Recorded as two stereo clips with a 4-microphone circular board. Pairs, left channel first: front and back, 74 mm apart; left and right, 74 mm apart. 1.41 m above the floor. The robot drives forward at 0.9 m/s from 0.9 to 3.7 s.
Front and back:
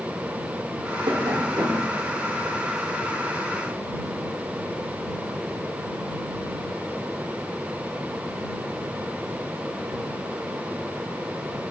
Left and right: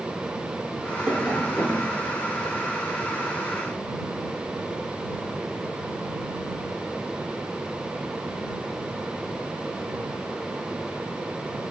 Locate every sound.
1.1 s tapping: 175° right, 0.6 m; by 1.9 s straight behind, 1.4 m